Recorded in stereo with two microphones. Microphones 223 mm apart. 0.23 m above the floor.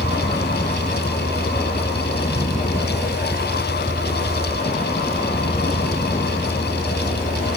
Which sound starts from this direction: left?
A vehicle, at 0.0 s.